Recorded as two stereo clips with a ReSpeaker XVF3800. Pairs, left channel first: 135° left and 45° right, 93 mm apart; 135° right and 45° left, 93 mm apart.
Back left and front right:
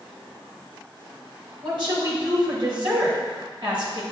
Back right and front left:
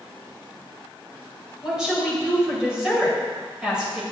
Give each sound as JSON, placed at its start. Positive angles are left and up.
{"t": 1.6, "sound": "a woman speaking", "azimuth_deg": -35, "distance_m": 2.0}